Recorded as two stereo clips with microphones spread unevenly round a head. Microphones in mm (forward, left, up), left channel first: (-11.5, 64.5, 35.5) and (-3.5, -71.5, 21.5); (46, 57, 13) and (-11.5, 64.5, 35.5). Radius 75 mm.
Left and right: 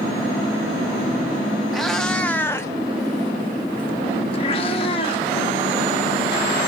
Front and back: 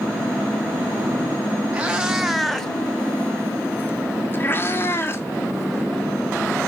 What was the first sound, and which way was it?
A cat meowing, 175° left.